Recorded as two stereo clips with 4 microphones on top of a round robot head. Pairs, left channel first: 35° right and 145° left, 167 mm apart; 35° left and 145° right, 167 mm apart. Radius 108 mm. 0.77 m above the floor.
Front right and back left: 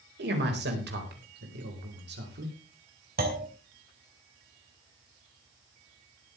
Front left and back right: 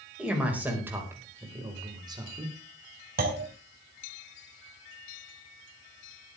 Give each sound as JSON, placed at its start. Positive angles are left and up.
{"t": 0.2, "sound": "a man speaking", "azimuth_deg": 130, "distance_m": 4.5}
{"t": 3.2, "sound": "a clunk", "azimuth_deg": 180, "distance_m": 3.0}